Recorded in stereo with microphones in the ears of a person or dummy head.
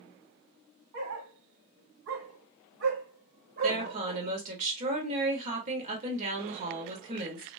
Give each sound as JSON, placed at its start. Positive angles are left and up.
{"t": 0.9, "sound": "a dog barking", "side_deg": -55, "distance_m": 1.8}
{"t": 3.6, "sound": "a woman speaking", "side_deg": -40, "distance_m": 1.7}